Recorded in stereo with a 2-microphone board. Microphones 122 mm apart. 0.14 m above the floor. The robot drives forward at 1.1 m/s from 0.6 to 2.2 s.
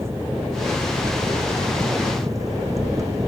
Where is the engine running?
20° right (ahead or behind); by 3.3 s 25° right (ahead or behind).